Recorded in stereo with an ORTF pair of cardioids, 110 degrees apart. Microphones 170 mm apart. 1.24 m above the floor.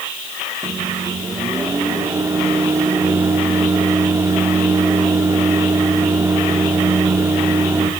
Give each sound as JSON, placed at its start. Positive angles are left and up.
{"t": 0.6, "sound": "a microwave", "azimuth_deg": -15, "distance_m": 3.0}